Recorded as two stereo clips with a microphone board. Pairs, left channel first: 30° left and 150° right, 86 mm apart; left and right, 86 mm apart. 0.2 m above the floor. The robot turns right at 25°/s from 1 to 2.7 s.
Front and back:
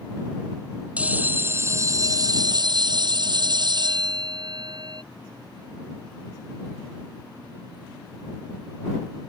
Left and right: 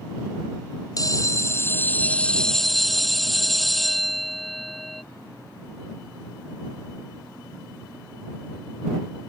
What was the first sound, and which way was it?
A bell, 135° left.